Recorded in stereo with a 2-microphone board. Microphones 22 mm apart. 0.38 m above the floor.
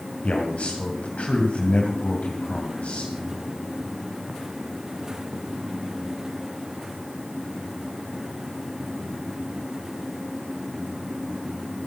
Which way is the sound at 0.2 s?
60° left (ahead or behind).